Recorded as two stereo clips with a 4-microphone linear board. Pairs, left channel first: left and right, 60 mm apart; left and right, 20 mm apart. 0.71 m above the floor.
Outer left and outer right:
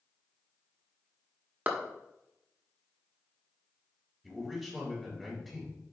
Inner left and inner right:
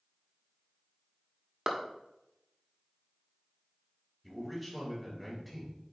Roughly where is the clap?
Right.